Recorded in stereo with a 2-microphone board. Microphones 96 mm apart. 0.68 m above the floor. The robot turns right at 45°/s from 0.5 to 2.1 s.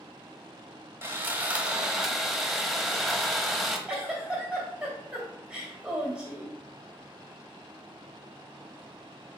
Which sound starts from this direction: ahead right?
Sawing, at 1.0 s.